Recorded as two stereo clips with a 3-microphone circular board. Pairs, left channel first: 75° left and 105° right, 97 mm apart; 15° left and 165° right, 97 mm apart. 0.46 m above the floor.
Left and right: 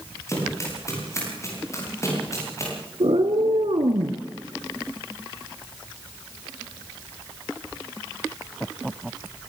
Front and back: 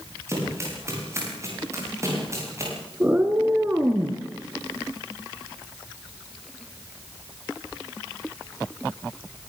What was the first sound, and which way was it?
Running footsteps, 135° left.